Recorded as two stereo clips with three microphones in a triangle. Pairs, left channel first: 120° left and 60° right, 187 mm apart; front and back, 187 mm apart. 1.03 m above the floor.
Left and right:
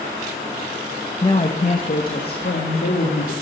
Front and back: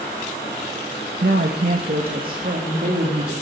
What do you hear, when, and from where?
1.2 s a woman speaking: 175° left, 1.2 m; by 3.3 s 135° left, 3 m